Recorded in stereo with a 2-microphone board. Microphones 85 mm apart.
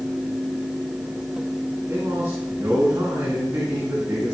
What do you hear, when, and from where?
1.9 s a man speaking: 35° right (ahead or behind), 3 m